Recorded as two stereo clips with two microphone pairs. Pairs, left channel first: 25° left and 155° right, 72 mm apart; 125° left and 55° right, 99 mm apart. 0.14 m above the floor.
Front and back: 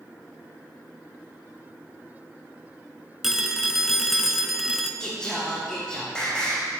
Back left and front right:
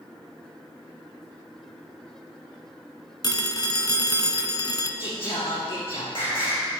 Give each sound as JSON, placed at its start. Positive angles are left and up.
{"t": 3.2, "sound": "a phone ringing", "azimuth_deg": 120, "distance_m": 1.0}
{"t": 5.0, "sound": "singing", "azimuth_deg": 105, "distance_m": 4.5}